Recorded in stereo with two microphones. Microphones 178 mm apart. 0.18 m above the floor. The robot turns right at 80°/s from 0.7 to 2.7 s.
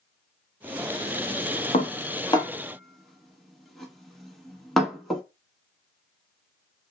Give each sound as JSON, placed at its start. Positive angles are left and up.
{"t": 1.7, "sound": "dishes clattering", "side_deg": 45, "distance_m": 1.0}